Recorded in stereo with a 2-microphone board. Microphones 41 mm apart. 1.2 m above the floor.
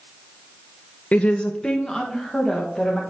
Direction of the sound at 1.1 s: 40° left (ahead or behind).